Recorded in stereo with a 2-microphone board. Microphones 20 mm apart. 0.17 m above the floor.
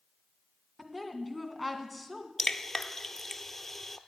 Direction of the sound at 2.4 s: 15° left (ahead or behind).